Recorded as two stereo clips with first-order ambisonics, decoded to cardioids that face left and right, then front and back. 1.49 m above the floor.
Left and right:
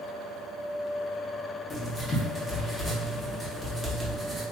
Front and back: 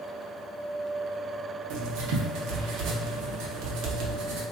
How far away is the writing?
About 0.7 m.